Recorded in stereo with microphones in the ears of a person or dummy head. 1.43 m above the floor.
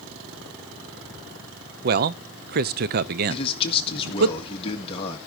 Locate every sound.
1.8 s a man speaking: 50° right (ahead or behind), 0.6 m
3.3 s a man speaking: 30° left (ahead or behind), 1.9 m